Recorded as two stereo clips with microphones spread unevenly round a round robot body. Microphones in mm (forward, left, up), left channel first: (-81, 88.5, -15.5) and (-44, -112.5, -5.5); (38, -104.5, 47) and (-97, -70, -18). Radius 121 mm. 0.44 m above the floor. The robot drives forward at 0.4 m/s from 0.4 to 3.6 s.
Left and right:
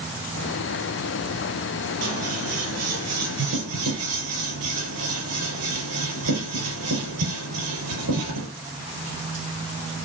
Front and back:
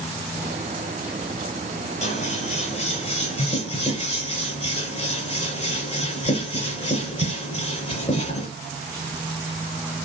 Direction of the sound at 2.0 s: 50° right.